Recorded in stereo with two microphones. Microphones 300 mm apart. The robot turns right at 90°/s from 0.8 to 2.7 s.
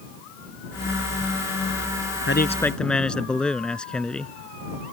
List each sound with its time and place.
2.3 s a man speaking: 135° left; by 4.3 s 175° left